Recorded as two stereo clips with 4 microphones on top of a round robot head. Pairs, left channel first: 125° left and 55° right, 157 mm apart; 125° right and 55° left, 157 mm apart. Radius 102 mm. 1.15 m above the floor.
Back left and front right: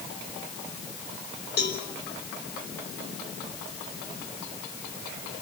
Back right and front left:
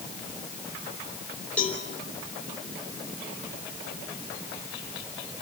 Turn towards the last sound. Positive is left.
turn(degrees=150)